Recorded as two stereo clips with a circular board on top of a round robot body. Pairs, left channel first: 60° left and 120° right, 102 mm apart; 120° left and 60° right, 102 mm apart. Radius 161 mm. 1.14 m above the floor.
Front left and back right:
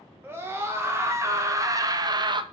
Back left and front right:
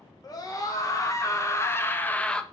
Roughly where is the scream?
Behind.